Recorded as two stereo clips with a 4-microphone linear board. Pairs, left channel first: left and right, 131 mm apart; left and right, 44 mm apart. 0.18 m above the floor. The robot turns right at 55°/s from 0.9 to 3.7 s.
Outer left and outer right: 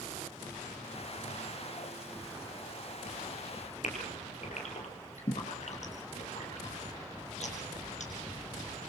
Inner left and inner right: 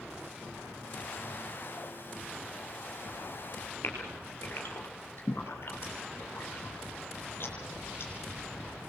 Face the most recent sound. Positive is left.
turn(degrees=60)  # may be behind; listen again after turning